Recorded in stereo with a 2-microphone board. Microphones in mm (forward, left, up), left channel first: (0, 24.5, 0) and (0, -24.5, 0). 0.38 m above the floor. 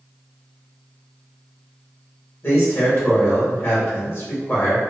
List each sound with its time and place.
2.4 s a man speaking: 45° left (ahead or behind), 1.4 m